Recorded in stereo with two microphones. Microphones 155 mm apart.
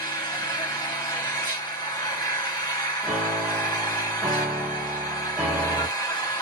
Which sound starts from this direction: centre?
A piano, at 3.0 s.